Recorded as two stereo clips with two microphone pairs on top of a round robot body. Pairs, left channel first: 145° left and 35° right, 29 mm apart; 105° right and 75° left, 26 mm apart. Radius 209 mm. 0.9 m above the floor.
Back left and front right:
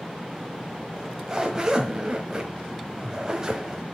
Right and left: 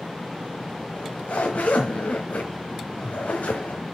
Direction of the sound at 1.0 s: 105° right.